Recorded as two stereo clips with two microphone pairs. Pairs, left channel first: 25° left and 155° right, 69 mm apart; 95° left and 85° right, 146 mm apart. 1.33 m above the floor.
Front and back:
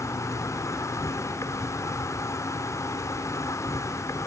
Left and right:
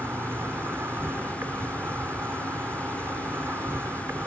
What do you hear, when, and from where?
0.0 s an insect: 10° right